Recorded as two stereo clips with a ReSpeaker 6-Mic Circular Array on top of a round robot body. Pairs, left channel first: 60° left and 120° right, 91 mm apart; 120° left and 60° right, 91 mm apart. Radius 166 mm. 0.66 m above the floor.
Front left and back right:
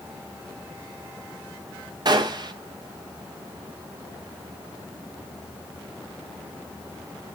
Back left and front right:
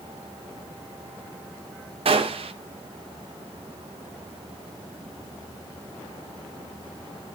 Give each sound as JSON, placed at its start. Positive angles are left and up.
{"t": 2.0, "sound": "a gunshot", "azimuth_deg": -75, "distance_m": 0.8}